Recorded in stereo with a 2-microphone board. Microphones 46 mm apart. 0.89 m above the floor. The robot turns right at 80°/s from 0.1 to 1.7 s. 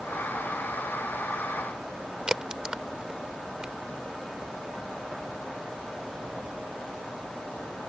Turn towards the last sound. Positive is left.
turn(degrees=-15)  # may be behind; listen again after turning